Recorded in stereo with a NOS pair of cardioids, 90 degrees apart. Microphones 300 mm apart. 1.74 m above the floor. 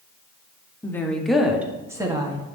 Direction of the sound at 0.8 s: 10° left.